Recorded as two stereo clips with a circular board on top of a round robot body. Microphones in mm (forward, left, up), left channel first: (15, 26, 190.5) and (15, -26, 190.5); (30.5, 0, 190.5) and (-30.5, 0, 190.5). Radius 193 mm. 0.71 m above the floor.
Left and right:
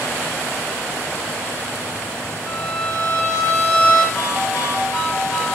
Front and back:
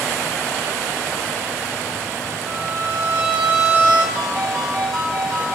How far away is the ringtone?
About 3.5 m.